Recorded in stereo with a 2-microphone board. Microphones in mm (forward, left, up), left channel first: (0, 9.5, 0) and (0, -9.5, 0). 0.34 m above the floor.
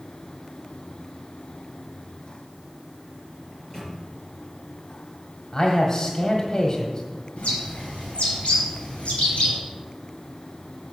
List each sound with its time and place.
3.5 s a microwave: 25° left (ahead or behind), 4.5 m
5.5 s a man speaking: 35° left (ahead or behind), 1.4 m
7.4 s a bird: 75° left (ahead or behind), 4.5 m